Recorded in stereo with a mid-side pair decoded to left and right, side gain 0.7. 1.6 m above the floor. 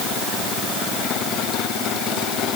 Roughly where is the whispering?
I don't hear whispering.